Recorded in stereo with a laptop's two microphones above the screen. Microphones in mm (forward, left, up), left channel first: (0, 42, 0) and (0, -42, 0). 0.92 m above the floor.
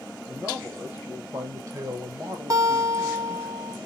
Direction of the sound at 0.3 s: 25° right (ahead or behind).